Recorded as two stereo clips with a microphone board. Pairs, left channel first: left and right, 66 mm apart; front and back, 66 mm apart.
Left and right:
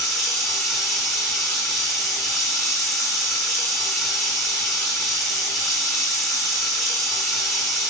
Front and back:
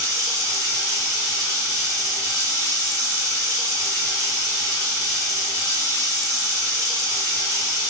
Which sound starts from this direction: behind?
Running water, at 0.0 s.